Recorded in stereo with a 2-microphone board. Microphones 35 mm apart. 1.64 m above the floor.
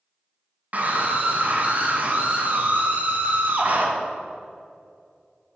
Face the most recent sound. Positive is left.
turn(degrees=-45)  # may be behind; listen again after turning